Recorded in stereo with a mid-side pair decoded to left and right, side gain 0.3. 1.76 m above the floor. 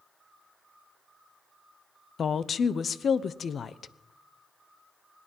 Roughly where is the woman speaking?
Left.